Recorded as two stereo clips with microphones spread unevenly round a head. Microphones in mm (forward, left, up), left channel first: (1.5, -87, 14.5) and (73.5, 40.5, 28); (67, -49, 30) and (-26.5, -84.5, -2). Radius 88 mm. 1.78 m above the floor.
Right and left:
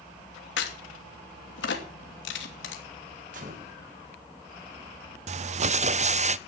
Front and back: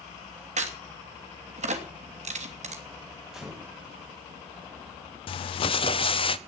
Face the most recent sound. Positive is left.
turn(degrees=25)